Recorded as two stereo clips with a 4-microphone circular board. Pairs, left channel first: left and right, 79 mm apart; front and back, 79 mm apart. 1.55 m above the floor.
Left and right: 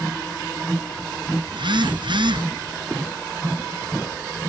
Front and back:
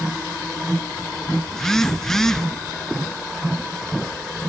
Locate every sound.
1.5 s a phone buzzing: 85° right, 0.7 m